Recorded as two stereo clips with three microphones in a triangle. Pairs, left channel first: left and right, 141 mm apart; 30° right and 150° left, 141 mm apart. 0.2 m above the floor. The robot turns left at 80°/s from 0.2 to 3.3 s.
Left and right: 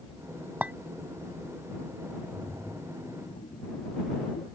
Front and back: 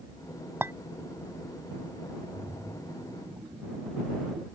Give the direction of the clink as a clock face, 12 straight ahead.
5 o'clock.